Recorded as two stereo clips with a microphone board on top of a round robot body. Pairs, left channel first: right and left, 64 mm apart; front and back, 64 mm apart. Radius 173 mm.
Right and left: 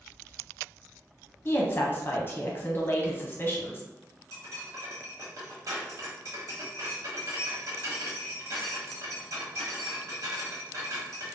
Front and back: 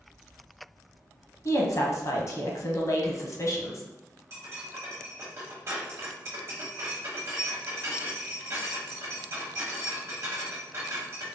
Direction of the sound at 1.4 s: 35° right.